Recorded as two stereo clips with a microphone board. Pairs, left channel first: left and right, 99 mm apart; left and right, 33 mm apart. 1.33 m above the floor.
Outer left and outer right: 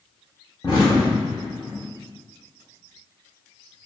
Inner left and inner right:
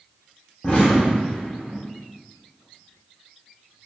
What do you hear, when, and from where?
0.6 s an explosion: 45° left (ahead or behind), 1.6 m